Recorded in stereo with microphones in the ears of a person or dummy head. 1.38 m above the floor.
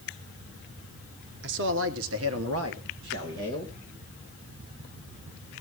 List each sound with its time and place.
1.4 s a man speaking: 60° right (ahead or behind), 1.5 m; by 3.7 s 55° right (ahead or behind), 2.5 m